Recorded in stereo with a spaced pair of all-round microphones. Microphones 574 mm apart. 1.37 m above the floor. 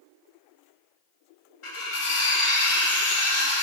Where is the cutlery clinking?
60° left (ahead or behind), 0.9 m.